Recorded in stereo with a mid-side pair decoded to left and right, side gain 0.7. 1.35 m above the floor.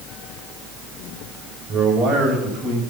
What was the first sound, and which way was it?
A man speaking, 30° right.